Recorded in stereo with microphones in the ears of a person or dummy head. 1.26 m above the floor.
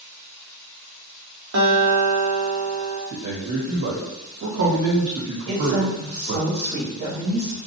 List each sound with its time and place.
1.5 s a guitar: 80° right, 1.1 m
3.1 s a man speaking: 70° right (ahead or behind), 1.3 m
5.5 s a woman speaking: 55° right (ahead or behind), 1.3 m